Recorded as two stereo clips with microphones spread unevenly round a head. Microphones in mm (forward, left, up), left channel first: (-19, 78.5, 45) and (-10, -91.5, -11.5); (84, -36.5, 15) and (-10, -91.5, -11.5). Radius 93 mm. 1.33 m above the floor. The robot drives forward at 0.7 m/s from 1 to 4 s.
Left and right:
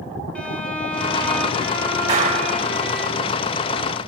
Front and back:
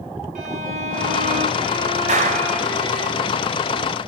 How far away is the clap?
About 4 m.